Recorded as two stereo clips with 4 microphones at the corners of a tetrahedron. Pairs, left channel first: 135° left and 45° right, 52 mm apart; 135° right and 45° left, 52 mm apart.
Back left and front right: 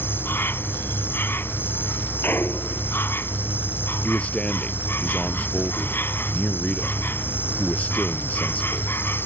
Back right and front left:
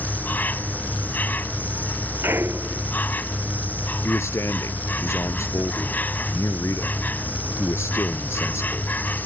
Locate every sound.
0.0 s an insect: 175° left
2.2 s a clunk: 85° left
4.0 s a man speaking: 160° right